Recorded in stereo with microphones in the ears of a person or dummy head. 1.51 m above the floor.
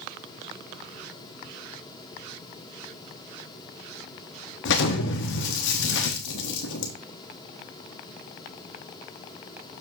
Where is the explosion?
65° left (ahead or behind), 1.3 m.